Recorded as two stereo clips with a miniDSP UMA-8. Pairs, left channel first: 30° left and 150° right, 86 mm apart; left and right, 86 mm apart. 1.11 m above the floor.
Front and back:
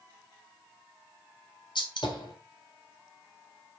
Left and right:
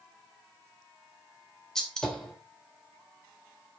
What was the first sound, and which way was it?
A gunshot, 5° left.